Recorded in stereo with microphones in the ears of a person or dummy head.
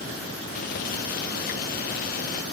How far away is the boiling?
About 0.7 m.